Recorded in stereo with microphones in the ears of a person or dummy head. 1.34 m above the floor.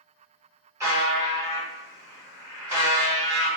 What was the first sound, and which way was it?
A buzzer, 15° right (ahead or behind).